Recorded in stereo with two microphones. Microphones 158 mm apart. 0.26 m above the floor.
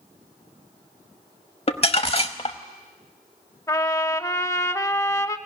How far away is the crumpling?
About 0.9 m.